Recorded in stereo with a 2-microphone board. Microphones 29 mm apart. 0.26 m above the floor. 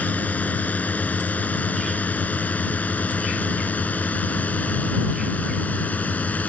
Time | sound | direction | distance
0.0 | a drone | 65° left (ahead or behind) | ?